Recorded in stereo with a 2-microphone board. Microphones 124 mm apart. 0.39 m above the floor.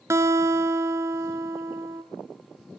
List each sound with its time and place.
0.1 s a guitar: 20° right (ahead or behind), 1.2 m